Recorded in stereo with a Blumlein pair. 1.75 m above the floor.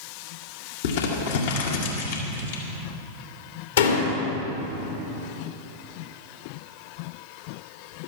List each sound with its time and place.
0.8 s crumpling: 55° left, 2 m
3.8 s a door slam: 60° left, 3 m